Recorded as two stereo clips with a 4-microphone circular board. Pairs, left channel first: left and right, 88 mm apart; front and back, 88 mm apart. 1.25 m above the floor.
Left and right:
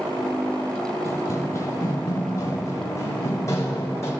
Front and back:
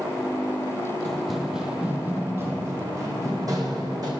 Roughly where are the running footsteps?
Left.